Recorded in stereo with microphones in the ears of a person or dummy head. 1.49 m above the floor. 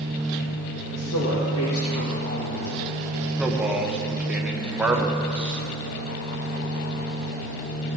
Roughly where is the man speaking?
Centre.